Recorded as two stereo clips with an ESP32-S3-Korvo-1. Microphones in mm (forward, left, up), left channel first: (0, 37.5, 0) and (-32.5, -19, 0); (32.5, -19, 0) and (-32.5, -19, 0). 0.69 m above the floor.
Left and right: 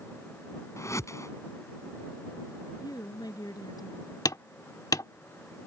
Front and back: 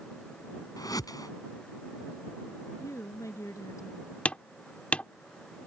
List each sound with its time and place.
0.8 s a whoosh: 20° left
2.8 s a woman speaking: 40° left
4.2 s hammering: 70° left